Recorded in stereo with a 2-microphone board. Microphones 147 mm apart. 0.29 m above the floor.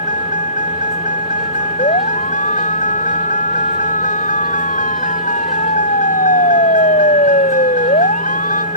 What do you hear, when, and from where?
0.0 s a vehicle: 60° left (ahead or behind)
1.8 s a siren: 55° left (ahead or behind); by 8.7 s 70° left (ahead or behind)